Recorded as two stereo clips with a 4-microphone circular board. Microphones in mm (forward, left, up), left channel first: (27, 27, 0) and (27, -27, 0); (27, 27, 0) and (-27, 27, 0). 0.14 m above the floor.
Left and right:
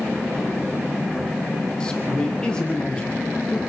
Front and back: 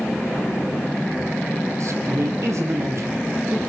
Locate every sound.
1.8 s a man speaking: 165° left, 4.5 m